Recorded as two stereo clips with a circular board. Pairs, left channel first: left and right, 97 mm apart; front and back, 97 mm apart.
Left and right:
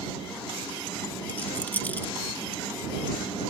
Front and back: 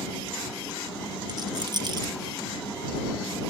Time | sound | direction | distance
1.3 | a rattle | 155° left | ?